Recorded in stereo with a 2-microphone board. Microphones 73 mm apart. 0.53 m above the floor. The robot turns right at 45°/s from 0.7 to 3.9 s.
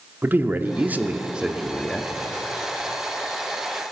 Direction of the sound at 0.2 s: 50° right.